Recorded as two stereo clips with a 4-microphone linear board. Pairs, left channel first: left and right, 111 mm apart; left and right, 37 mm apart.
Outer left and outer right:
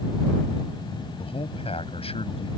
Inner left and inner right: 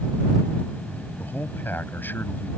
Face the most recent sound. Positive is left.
turn(degrees=65)  # may be behind; listen again after turning